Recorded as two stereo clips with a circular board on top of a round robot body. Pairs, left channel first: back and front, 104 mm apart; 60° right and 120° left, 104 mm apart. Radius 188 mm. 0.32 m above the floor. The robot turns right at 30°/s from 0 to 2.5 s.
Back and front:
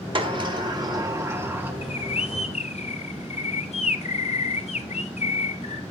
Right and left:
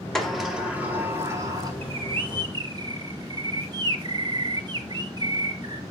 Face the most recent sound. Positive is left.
turn(degrees=170)